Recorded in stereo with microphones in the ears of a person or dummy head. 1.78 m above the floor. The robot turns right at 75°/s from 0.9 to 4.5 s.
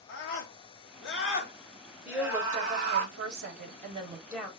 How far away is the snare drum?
No snare drum in this recording.